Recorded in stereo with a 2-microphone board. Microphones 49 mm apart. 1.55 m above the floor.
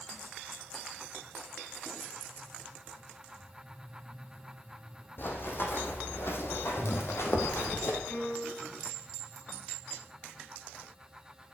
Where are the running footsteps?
50° left (ahead or behind), 4 m; by 8.0 s 60° left (ahead or behind), 3 m.